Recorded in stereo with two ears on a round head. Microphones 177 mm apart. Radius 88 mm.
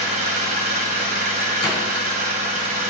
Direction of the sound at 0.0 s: 45° right (ahead or behind).